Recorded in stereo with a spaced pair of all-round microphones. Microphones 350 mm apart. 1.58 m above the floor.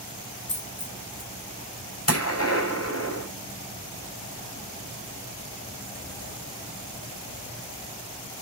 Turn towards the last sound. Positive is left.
turn(degrees=45)  # may be behind; listen again after turning